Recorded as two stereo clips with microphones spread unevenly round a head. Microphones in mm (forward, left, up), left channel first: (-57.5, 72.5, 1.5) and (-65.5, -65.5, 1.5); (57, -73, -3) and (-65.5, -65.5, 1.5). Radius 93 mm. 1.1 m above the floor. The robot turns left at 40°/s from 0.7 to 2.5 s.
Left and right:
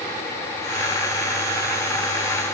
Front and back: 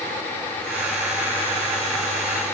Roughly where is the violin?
No violin in this recording.